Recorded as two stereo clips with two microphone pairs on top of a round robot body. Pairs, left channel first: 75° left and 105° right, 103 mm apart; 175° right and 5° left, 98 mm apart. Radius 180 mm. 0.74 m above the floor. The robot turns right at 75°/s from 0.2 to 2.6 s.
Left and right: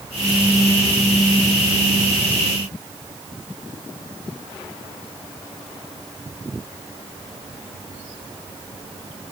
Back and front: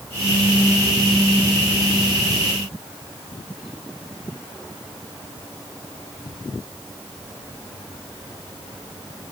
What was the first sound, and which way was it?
Only background noise.